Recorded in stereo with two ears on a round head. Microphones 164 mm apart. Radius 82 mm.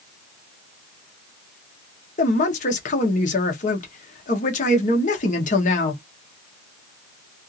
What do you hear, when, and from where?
2.2 s a man speaking: 45° left (ahead or behind), 0.9 m